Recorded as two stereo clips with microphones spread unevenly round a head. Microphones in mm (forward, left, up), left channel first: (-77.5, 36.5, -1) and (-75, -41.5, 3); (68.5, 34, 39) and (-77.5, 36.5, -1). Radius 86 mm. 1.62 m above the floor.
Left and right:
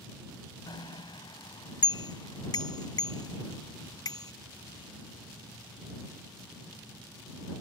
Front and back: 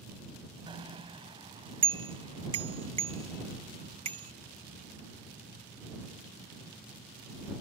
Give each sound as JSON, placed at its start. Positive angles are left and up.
{"t": 0.7, "sound": "a bicycle bell", "azimuth_deg": 120}